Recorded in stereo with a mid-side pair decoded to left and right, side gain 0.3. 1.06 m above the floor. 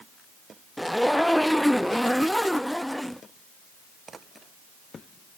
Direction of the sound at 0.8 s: 5° left.